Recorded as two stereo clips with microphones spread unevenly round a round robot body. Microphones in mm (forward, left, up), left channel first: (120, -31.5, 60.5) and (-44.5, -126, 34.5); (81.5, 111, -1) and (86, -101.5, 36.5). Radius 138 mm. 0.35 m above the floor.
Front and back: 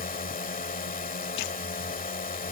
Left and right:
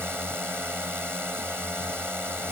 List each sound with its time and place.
0.0 s a drone: 5° right